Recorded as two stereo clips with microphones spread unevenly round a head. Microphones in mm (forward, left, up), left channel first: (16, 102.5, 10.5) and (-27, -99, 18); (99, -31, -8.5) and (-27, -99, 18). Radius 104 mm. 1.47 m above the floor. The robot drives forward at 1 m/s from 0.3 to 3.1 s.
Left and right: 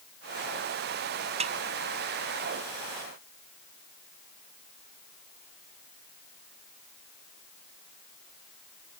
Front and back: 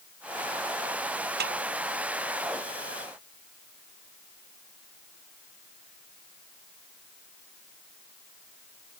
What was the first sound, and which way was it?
A snare drum, 165° right.